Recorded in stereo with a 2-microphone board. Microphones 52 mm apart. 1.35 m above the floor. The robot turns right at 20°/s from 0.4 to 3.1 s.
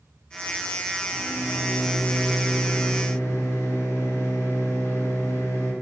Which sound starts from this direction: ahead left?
A microwave, at 1.1 s.